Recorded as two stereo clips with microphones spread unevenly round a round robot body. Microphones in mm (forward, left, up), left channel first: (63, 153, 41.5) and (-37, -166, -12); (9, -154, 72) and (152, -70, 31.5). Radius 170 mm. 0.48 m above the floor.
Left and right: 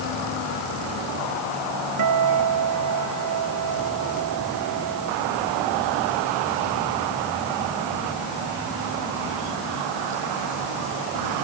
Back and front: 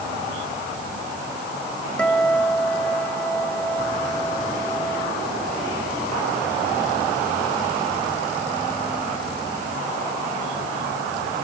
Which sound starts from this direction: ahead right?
A guitar, at 2.0 s.